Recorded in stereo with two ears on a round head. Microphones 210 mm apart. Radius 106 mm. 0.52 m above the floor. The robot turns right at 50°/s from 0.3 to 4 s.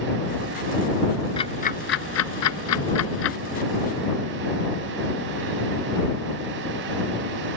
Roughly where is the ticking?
Left.